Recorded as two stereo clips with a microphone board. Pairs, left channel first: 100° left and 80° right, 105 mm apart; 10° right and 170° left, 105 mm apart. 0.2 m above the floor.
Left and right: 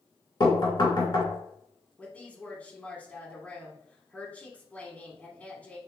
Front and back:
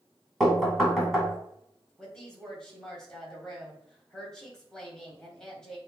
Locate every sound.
0.4 s knocking: 80° left, 1.6 m
2.0 s a woman speaking: 60° left, 1.3 m